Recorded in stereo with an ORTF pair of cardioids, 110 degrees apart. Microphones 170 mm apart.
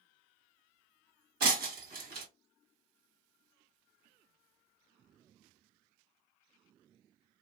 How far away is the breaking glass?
About 1.4 m.